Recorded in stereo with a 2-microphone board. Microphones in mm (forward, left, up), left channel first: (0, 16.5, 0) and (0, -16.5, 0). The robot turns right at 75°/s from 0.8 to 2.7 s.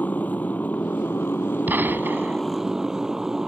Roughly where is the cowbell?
No cowbell in this recording.